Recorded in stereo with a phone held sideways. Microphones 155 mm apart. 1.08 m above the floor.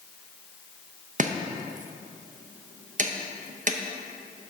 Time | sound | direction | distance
1.2 | chopping | 55° right (ahead or behind) | 0.6 m